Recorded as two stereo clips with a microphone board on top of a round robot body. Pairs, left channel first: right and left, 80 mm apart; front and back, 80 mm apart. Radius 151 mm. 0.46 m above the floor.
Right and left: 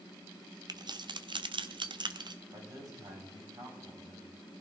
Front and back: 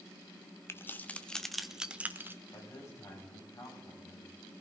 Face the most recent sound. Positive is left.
turn(degrees=50)